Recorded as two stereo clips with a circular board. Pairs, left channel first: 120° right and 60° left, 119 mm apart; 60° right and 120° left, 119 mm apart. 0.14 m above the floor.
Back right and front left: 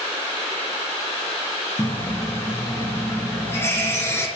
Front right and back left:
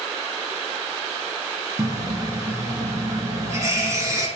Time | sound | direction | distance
1.8 | a running tap | 175° left | 1.5 m